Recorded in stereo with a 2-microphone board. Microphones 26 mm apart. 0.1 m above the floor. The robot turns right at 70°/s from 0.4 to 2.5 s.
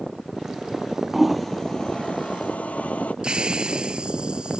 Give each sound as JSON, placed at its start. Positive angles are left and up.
{"t": 1.1, "sound": "a toilet flushing", "side_deg": -10}
{"t": 3.2, "sound": "a hiss", "side_deg": -35}